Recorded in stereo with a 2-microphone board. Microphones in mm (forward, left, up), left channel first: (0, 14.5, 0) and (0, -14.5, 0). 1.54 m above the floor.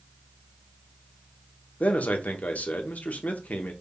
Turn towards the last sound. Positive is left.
turn(degrees=70)  # may be behind; listen again after turning